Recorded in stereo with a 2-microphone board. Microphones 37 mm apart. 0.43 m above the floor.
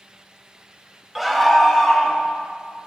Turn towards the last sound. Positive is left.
turn(degrees=5)  # may be behind; listen again after turning